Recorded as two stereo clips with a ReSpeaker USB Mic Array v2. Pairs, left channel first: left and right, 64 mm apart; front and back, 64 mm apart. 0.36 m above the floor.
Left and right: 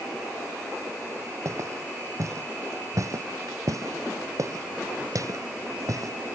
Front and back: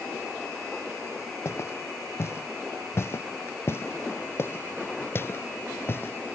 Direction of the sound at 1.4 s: 50° right.